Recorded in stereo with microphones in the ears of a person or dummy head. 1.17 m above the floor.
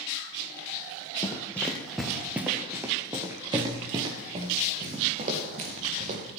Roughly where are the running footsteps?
Centre.